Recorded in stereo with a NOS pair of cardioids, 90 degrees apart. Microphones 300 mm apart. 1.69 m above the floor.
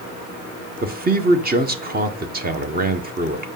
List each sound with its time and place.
0.8 s a man speaking: 30° right, 1.5 m